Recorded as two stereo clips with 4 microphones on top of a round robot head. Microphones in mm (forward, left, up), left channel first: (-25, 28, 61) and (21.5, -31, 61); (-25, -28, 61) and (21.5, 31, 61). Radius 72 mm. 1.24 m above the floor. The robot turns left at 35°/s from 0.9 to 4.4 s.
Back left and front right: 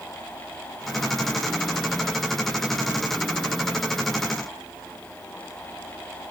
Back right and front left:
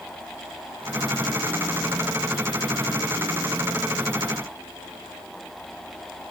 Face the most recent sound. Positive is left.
No sound to turn to.